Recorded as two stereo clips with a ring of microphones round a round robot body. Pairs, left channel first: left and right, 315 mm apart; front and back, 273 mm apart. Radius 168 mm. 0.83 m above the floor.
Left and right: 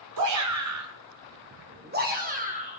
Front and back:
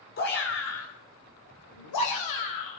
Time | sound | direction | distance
0.2 | a shout | 60° right | 2 m